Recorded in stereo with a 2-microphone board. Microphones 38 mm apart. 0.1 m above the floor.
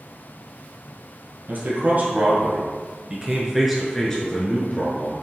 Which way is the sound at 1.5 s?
55° right (ahead or behind).